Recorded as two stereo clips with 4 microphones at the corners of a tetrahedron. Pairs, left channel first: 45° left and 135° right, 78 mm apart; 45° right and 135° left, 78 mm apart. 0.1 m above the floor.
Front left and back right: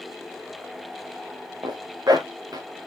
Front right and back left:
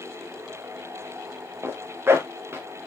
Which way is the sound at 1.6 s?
170° right.